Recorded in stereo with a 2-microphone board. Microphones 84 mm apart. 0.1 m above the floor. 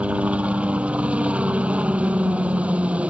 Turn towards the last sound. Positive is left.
turn(degrees=-15)  # may be behind; listen again after turning